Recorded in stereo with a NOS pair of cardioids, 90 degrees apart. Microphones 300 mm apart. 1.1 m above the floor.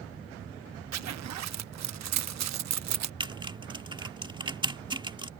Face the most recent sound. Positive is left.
turn(degrees=-15)